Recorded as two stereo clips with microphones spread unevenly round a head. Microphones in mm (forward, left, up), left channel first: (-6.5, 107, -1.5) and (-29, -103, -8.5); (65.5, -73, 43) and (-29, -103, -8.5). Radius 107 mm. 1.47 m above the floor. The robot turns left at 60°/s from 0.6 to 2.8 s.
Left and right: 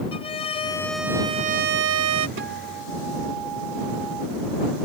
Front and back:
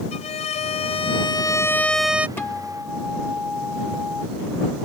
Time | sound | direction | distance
0.1 | a violin | 15° left | ?
2.4 | a guitar | 55° right | ?